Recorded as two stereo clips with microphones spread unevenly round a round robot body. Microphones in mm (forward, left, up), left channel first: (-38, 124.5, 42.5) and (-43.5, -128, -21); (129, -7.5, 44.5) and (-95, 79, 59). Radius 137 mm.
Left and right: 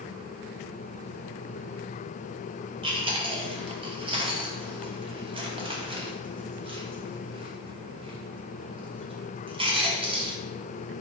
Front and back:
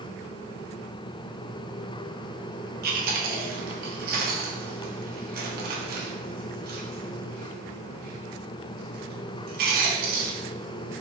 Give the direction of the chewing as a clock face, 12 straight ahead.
5 o'clock.